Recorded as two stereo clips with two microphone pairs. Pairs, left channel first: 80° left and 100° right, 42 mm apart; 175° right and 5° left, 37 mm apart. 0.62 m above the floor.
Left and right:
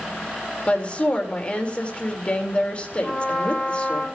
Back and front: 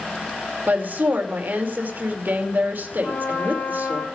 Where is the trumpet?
150° left, 5 m.